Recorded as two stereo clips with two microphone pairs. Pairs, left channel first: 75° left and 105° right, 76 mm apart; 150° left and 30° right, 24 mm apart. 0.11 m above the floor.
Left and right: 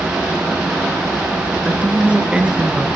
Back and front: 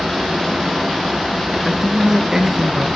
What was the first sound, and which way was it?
A man speaking, 45° right.